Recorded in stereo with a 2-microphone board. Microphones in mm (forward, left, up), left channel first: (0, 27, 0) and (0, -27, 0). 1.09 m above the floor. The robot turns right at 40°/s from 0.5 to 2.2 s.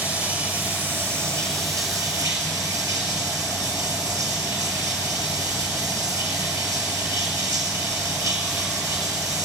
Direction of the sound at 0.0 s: 150° right.